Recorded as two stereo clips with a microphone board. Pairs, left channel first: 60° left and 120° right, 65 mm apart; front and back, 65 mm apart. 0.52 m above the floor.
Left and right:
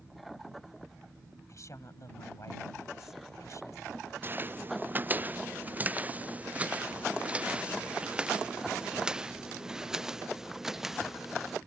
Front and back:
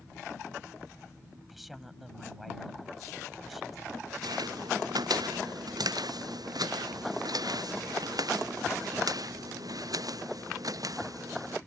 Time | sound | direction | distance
1.5 | a woman speaking | 90° left | ?
4.2 | footsteps | straight behind | ?